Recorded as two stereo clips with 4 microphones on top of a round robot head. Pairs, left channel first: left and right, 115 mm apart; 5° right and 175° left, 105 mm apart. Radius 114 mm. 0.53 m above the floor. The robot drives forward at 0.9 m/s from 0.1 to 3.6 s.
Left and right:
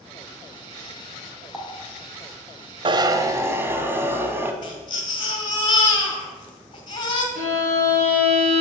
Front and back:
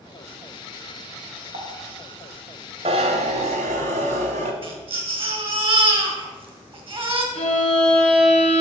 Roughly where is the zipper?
Behind right.